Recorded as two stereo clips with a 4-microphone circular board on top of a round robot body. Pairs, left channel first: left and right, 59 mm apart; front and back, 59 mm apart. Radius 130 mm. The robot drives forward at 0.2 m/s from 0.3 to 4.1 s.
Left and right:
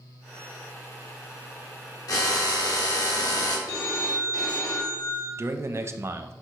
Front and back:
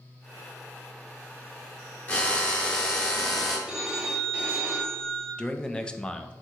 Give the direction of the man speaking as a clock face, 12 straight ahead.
2 o'clock.